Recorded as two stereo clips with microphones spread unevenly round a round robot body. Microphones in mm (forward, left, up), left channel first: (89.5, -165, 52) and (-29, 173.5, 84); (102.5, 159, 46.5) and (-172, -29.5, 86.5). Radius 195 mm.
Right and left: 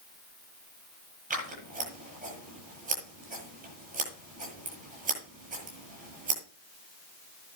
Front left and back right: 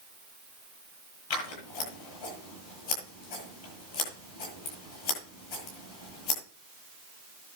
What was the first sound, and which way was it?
Scissors, 40° left.